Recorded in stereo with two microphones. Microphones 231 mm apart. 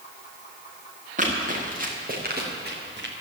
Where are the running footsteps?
35° right (ahead or behind), 5.5 m; by 3.1 s 50° right (ahead or behind), 4 m.